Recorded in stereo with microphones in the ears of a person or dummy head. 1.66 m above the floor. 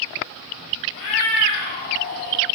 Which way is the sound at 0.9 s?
50° left (ahead or behind).